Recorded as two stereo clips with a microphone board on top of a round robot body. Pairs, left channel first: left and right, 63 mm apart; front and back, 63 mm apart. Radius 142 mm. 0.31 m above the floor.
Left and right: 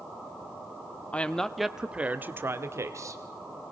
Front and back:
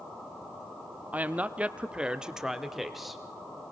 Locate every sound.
1.1 s a woman speaking: 140° left, 1.2 m; by 3.2 s 90° right, 1.7 m